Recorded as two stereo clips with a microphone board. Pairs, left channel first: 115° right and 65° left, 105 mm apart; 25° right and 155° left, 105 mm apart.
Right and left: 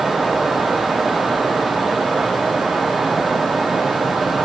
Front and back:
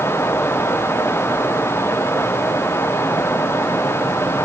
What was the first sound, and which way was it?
Only background noise.